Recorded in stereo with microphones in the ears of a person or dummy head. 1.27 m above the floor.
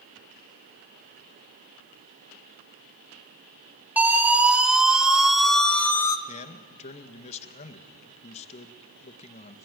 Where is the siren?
5° right (ahead or behind), 3 m; by 6.2 s 15° left (ahead or behind), 1.0 m.